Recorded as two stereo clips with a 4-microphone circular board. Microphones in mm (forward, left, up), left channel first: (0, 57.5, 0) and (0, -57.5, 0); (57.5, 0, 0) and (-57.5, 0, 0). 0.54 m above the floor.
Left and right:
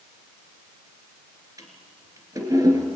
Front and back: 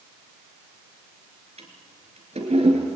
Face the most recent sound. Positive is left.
turn(degrees=-150)